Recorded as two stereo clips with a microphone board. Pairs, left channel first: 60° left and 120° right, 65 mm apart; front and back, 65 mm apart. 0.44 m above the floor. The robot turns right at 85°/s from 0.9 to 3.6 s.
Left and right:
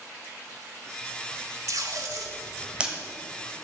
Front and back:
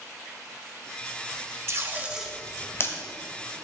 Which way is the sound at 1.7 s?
145° right.